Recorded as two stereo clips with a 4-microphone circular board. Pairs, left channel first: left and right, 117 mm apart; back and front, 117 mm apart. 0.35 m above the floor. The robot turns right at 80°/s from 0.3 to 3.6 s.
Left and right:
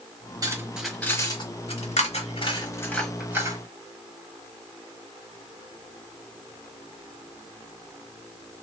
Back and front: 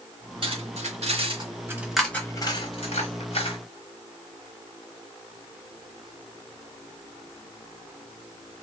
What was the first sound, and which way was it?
Cutlery clinking, 35° right.